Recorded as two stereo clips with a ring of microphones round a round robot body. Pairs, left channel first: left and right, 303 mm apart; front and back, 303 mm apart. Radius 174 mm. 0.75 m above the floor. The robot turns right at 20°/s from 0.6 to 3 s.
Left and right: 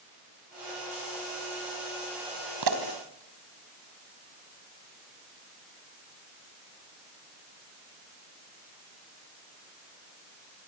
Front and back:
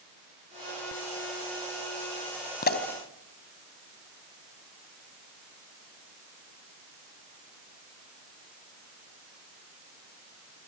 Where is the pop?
60° right, 3.5 m; by 2.8 s 55° right, 3.5 m.